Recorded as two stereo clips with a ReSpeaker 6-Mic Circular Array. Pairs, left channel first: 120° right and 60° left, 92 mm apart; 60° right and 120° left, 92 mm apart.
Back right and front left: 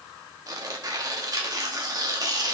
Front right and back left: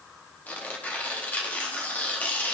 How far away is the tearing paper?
About 1.1 m.